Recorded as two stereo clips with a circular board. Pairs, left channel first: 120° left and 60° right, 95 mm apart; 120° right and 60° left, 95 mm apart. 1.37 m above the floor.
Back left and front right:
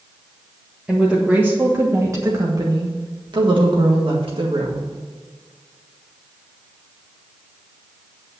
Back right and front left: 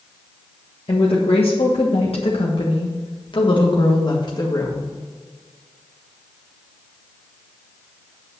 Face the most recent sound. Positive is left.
turn(degrees=-70)